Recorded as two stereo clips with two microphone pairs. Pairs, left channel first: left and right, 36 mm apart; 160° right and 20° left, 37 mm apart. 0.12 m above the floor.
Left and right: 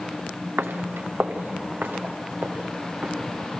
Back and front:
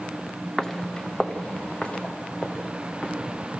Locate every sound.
0.6 s footsteps: 75° right, 0.9 m; by 3.1 s 110° right, 3.5 m